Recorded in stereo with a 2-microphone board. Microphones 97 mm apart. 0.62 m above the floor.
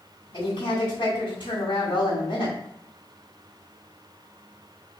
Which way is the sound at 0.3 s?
60° left (ahead or behind).